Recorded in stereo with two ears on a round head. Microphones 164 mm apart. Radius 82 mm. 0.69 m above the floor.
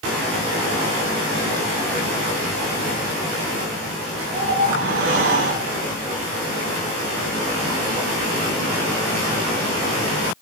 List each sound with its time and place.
4.3 s a whoosh: 60° right (ahead or behind), 1.8 m